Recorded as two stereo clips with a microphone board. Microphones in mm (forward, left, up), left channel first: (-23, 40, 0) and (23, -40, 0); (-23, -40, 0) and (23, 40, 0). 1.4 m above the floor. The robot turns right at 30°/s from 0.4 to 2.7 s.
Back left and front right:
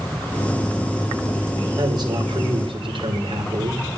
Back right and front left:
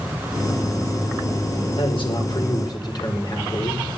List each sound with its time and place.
1.8 s a man speaking: 105° right, 5 m; by 3.8 s 80° right, 5 m